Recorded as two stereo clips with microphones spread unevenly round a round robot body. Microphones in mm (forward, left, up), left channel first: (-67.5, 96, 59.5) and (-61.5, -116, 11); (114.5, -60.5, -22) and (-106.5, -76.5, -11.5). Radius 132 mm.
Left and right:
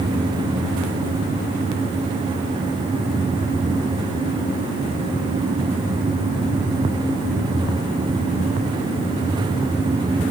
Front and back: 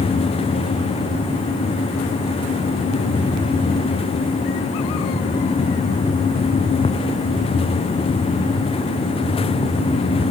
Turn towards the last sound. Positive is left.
No sound to turn to.